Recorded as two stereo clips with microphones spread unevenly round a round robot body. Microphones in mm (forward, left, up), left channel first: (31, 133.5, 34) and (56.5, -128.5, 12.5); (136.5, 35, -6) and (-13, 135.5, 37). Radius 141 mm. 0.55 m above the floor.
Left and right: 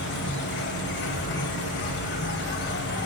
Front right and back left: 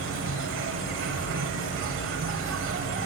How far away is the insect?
About 3.5 m.